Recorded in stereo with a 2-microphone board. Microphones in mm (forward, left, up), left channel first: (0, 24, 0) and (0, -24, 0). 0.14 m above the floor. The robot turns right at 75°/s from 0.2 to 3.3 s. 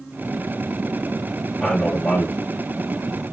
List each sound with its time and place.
1.6 s a man speaking: 15° left, 2.5 m; by 2.4 s 75° left, 2.5 m